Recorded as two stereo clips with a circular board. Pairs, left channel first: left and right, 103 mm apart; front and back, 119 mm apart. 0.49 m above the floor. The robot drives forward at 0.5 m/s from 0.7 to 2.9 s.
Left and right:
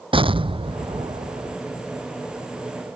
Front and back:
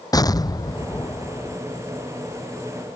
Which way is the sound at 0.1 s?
60° right.